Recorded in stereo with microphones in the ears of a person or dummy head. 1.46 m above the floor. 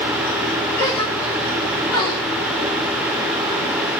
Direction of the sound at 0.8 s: 25° left (ahead or behind).